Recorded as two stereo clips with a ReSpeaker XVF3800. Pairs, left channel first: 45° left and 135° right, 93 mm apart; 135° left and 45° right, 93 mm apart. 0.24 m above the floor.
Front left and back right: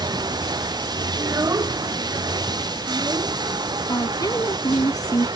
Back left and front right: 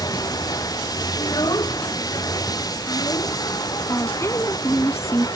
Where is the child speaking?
175° left.